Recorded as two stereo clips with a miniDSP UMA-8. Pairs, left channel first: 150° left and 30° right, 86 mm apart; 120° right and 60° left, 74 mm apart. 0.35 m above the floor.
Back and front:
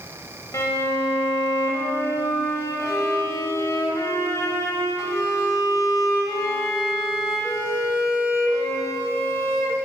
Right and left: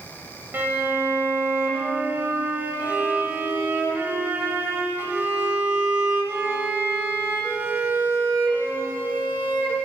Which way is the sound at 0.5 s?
115° left.